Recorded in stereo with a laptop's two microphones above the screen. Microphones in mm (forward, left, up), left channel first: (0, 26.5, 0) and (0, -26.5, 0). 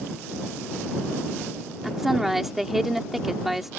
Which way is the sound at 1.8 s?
5° right (ahead or behind).